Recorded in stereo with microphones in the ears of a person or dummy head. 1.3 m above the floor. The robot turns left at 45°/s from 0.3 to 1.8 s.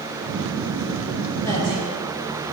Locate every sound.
1.4 s a woman speaking: 10° left (ahead or behind), 1.8 m; by 1.9 s 25° left (ahead or behind), 1.8 m